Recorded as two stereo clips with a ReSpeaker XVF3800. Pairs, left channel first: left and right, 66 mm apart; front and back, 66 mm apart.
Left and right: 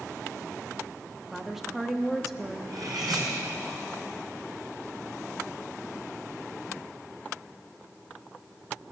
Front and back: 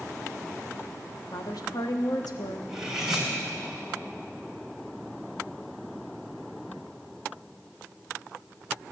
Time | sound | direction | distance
1.3 | a woman speaking | 5° right | 1.2 m
2.7 | cutlery clinking | 95° right | 3 m